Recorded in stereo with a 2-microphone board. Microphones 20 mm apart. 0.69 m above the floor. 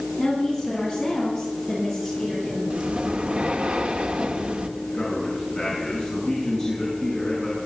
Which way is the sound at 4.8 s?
Centre (ahead or behind).